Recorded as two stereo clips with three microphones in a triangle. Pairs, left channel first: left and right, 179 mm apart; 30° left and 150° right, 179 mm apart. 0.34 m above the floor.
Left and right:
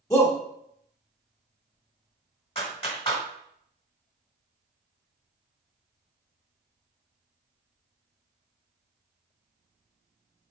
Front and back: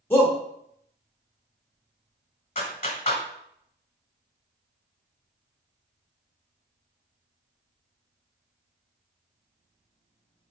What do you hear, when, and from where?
0.1 s a shout: 80° left, 0.9 m
2.5 s a clap: 50° left, 1.2 m